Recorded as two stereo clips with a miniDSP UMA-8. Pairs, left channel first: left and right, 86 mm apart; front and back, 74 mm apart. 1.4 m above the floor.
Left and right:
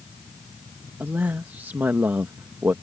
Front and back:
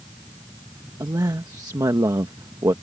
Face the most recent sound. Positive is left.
turn(degrees=-155)